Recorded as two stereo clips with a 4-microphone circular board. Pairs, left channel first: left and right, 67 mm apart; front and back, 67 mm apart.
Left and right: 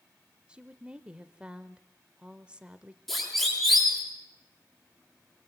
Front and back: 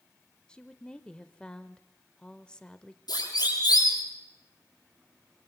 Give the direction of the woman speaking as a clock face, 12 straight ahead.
2 o'clock.